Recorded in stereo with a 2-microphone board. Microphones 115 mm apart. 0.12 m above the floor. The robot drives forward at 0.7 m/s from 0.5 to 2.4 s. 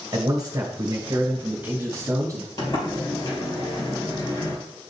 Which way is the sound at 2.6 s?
35° left (ahead or behind).